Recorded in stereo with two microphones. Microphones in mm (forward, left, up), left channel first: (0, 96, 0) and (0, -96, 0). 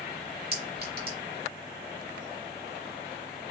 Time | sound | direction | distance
0.5 | a clink | 55° right (ahead or behind) | 2 m